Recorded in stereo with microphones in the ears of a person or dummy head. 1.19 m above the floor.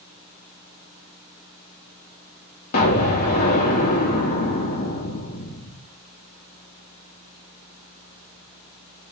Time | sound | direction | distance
2.7 | an explosion | 45° left (ahead or behind) | 0.7 m